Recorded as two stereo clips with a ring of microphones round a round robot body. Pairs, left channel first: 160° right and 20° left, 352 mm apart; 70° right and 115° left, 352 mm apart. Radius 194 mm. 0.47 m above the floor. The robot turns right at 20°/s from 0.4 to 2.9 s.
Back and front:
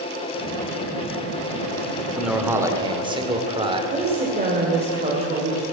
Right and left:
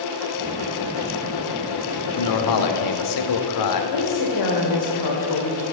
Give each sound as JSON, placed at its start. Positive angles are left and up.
{"t": 2.2, "sound": "a man speaking", "azimuth_deg": -70, "distance_m": 1.4}
{"t": 3.9, "sound": "a woman speaking", "azimuth_deg": -50, "distance_m": 1.9}